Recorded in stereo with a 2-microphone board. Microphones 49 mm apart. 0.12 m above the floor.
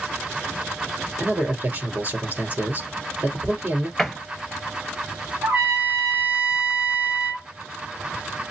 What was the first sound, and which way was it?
A man speaking, 35° right (ahead or behind).